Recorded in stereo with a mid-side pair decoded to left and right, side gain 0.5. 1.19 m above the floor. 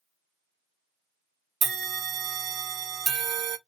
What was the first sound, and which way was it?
A bell, 60° right.